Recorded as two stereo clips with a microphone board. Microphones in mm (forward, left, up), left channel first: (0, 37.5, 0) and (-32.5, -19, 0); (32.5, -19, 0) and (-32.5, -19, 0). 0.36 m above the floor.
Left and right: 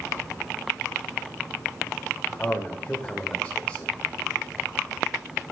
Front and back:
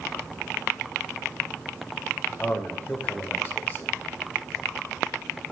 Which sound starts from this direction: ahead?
A man speaking, at 2.4 s.